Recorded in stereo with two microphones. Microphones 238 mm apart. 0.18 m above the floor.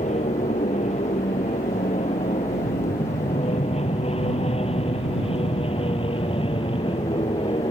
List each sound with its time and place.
0.0 s an aircraft: 30° left (ahead or behind); by 7.7 s 20° left (ahead or behind)